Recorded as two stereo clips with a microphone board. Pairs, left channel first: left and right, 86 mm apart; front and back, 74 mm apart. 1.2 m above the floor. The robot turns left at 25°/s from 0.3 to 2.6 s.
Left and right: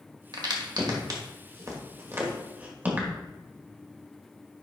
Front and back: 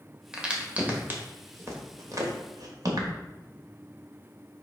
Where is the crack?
100° right, 1.6 m; by 3.1 s 160° right, 1.6 m.